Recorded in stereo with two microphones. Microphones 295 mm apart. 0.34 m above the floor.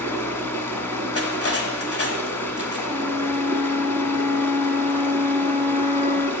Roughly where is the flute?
Centre.